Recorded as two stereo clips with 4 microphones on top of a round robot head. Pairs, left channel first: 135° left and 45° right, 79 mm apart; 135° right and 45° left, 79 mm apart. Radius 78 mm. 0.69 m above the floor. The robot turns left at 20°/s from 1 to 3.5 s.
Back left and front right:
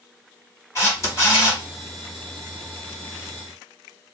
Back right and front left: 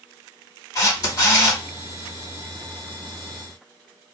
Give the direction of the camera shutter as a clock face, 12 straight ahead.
6 o'clock.